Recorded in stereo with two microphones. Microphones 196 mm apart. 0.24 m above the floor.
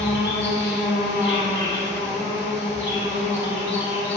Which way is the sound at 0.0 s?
65° left (ahead or behind).